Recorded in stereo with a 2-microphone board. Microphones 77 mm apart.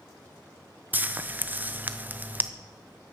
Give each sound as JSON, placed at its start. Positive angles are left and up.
{"t": 0.9, "sound": "frying", "side_deg": -25, "distance_m": 0.5}